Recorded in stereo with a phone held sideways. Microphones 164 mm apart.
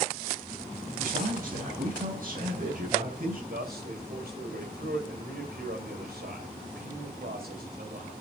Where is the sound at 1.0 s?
55° right (ahead or behind), 5 m.